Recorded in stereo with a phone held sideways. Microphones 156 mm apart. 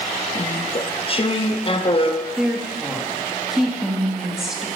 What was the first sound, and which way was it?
Chewing, 35° left (ahead or behind).